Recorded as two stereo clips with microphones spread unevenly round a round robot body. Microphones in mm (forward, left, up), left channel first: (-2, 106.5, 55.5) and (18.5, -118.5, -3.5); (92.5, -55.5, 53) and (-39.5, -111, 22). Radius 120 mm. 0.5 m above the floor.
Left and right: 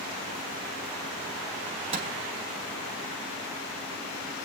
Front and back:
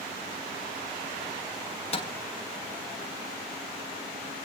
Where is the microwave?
25° right, 4 m.